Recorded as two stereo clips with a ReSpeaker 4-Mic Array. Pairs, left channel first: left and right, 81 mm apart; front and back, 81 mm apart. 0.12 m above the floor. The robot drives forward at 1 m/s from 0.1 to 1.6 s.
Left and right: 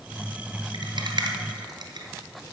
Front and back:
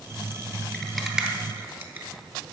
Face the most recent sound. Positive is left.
turn(degrees=-120)